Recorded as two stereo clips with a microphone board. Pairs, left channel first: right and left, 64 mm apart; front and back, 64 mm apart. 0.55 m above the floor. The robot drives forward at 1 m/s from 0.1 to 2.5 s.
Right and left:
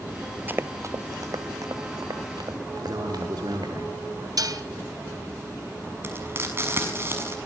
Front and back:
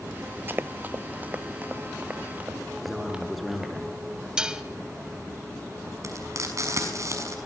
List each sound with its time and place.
0.5 s running footsteps: 140° left, 0.6 m; by 3.7 s 95° left, 4.5 m
2.8 s a man speaking: 90° left, 8 m
4.4 s dishes clattering: 100° left, 2.5 m
6.0 s frying: 145° left, 6 m